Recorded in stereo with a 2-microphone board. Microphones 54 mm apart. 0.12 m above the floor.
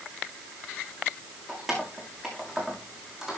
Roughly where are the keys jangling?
Centre.